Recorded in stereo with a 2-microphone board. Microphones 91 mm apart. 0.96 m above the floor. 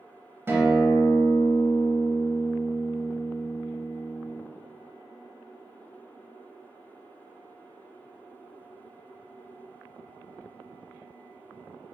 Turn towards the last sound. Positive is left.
turn(degrees=-25)  # may be behind; listen again after turning